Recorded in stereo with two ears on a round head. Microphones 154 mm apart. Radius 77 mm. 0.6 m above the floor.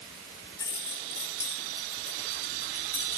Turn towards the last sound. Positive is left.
turn(degrees=20)  # may be behind; listen again after turning